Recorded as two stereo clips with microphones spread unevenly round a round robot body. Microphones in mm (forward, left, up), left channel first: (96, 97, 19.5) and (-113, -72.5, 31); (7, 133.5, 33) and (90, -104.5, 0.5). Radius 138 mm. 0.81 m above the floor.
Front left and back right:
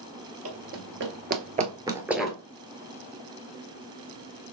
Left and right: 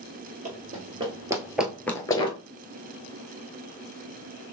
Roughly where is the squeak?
No squeak in this recording.